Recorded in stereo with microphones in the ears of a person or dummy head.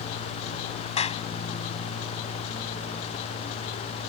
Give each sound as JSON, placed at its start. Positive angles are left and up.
{"t": 1.0, "sound": "a clap", "side_deg": 35}